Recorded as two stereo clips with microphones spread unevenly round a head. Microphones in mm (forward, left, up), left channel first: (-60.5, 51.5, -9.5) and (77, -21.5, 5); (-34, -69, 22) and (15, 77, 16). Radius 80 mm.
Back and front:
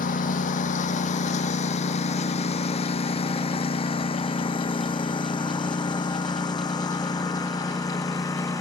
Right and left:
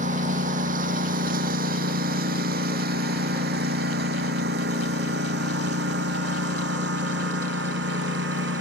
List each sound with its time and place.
0.0 s a lawn mower: 115° left; by 8.6 s 80° left